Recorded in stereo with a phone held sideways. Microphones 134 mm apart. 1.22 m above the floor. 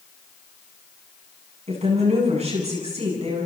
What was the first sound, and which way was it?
A woman speaking, 55° right (ahead or behind).